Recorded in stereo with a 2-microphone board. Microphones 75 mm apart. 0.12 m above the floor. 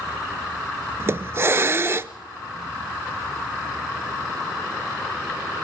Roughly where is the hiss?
Right.